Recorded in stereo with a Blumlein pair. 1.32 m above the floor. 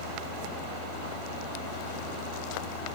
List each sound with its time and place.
0.0 s a fan: 55° left